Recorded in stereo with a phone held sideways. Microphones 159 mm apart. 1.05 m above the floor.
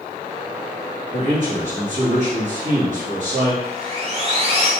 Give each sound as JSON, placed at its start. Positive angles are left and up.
{"t": 1.1, "sound": "a man speaking", "side_deg": -55, "distance_m": 1.6}
{"t": 3.6, "sound": "sawing", "side_deg": -40, "distance_m": 0.8}